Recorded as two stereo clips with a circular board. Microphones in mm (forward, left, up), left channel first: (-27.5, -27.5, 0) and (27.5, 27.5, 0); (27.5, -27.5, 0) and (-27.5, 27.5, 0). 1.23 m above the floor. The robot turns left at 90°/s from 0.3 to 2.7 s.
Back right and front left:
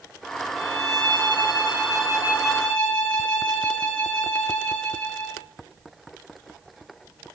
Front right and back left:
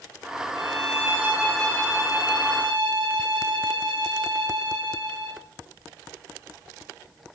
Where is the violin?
130° left, 8 m; by 5.4 s 65° right, 8 m.